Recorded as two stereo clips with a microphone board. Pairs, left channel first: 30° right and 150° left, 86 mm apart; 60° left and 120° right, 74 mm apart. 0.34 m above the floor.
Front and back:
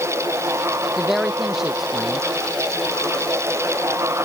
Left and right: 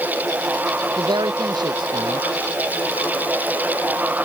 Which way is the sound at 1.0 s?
125° right.